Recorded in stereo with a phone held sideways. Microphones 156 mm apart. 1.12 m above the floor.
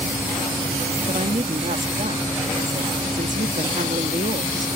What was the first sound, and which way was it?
A woman speaking, 55° right (ahead or behind).